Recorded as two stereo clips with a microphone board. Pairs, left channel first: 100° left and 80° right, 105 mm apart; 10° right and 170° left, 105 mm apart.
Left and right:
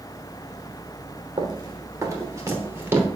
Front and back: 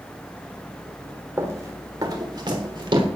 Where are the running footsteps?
125° right, 3 m; by 3.1 s 150° right, 4.5 m.